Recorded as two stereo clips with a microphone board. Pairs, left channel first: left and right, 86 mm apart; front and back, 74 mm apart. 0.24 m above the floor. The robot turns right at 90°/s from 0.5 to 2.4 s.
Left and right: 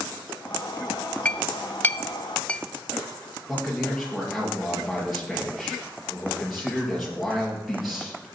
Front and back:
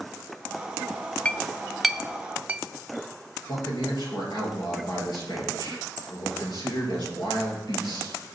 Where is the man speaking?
Straight ahead, 4.5 m.